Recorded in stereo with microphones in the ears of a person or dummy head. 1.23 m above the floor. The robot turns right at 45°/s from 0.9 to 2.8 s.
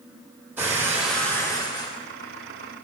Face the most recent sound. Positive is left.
turn(degrees=75)